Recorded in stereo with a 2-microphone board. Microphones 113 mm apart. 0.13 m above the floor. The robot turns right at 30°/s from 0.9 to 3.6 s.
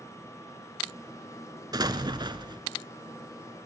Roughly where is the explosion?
Right.